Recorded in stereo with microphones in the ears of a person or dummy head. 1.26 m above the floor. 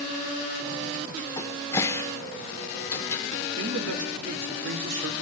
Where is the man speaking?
75° right (ahead or behind), 3 m.